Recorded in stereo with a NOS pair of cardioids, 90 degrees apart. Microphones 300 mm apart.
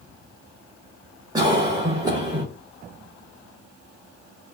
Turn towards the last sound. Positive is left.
turn(degrees=-15)